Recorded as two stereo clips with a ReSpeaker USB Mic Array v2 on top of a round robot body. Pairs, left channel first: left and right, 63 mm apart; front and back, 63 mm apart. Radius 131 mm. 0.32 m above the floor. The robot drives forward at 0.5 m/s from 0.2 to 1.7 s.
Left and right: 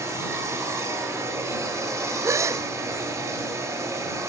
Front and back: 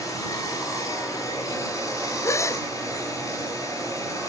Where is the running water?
40° right, 8 m.